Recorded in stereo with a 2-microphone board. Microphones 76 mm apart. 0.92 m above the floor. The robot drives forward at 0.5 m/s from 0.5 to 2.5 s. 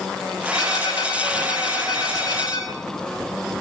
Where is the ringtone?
50° left (ahead or behind), 8 m; by 2.7 s 55° left (ahead or behind), 7 m.